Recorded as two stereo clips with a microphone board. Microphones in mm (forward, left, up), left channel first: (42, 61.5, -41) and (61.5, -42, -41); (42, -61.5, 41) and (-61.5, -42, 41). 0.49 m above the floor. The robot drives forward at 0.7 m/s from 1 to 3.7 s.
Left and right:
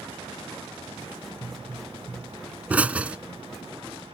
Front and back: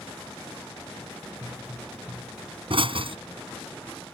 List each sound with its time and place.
1.4 s a pop: 150° right; by 3.2 s 160° right